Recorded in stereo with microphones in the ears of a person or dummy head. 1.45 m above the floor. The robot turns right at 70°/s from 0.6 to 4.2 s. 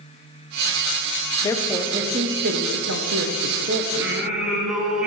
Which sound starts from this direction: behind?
A woman speaking, at 1.4 s.